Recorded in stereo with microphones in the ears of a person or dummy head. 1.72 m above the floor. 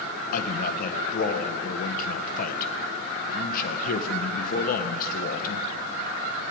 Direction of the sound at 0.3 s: 55° left (ahead or behind).